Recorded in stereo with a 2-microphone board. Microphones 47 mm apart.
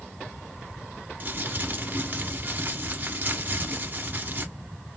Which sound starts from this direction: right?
Crumpling, at 1.2 s.